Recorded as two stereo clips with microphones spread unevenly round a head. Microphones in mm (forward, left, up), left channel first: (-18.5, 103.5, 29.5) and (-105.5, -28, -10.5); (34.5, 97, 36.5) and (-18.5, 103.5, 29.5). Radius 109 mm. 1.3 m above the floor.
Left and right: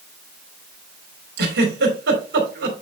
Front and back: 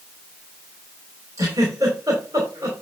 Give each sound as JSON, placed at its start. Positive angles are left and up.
{"t": 1.4, "sound": "a giggle", "azimuth_deg": -120, "distance_m": 3.0}